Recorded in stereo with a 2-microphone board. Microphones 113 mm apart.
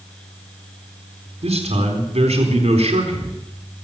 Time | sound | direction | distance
1.4 | a man speaking | 70° right (ahead or behind) | 4 m